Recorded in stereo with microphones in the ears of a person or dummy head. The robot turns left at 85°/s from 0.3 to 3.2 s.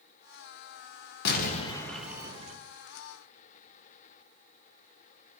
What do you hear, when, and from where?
1.2 s an explosion: 65° left, 1.0 m; by 2.6 s 45° right, 1.0 m